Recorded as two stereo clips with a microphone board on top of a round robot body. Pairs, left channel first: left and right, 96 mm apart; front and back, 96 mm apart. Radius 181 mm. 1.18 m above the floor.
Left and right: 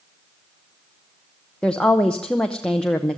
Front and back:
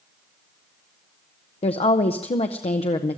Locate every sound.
1.6 s a woman speaking: 10° left, 0.9 m